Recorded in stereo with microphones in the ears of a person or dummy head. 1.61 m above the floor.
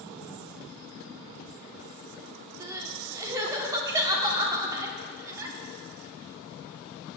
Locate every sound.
2.6 s crying: 15° right (ahead or behind), 1.0 m